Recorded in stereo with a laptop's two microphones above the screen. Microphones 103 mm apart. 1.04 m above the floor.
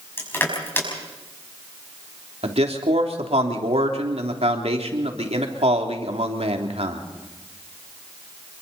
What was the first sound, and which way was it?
Crushing, 20° left (ahead or behind).